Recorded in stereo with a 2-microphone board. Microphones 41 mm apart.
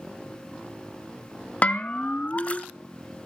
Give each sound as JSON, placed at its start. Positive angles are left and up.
{"t": 1.6, "sound": "a bell", "side_deg": 35, "distance_m": 0.5}